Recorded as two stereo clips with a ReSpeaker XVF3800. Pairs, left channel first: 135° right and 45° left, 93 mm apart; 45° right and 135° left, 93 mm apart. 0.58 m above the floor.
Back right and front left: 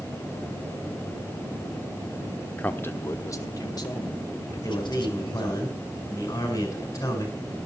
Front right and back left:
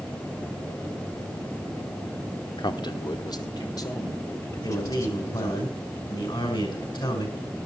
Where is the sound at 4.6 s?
80° right, 6 m.